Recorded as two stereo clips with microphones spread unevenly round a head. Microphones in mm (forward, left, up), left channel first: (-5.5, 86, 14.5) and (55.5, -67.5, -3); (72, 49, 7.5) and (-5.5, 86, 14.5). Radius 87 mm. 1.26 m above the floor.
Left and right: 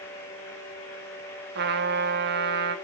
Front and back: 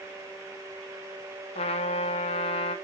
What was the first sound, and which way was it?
A trumpet, 45° right.